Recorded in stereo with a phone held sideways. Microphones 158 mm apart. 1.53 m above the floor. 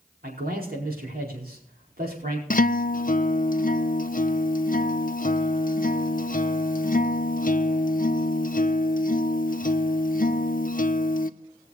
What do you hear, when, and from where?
0.2 s a man speaking: 70° right (ahead or behind), 4.5 m
2.5 s a guitar: 60° left (ahead or behind), 0.7 m